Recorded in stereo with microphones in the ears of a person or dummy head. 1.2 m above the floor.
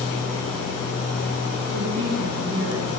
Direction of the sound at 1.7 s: 75° right (ahead or behind).